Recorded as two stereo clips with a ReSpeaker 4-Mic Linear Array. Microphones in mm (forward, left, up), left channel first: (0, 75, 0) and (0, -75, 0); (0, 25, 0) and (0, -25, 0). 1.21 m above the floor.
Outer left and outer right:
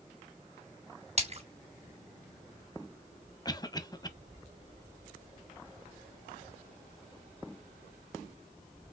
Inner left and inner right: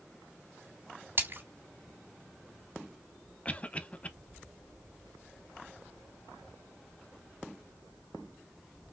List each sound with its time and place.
1.2 s a splash: 45° right (ahead or behind), 3 m
3.5 s a cough: 25° left (ahead or behind), 0.7 m